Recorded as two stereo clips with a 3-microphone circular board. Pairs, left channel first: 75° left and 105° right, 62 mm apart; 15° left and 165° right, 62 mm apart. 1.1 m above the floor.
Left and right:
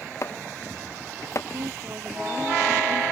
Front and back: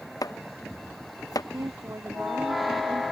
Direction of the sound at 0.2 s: 35° left.